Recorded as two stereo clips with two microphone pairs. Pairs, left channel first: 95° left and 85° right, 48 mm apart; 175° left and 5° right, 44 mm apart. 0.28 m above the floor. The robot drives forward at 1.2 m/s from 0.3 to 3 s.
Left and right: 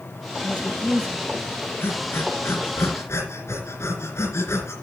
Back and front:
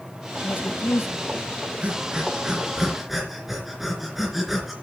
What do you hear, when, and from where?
0.4 s a woman speaking: 155° left, 1.6 m; by 1.4 s 165° left, 2.5 m
1.8 s breathing: 60° left, 3.5 m; by 4.8 s 80° left, 3 m